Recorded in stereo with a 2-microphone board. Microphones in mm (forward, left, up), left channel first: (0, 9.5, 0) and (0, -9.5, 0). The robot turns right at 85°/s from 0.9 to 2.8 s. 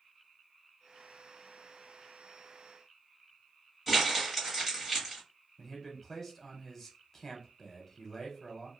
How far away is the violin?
I don't hear a violin.